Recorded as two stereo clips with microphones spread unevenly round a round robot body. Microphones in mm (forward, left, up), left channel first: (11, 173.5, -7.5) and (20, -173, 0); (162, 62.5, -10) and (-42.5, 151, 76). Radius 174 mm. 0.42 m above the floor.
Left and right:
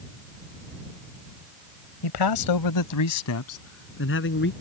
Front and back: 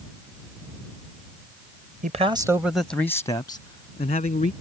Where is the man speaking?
90° left; by 4.5 s 30° left.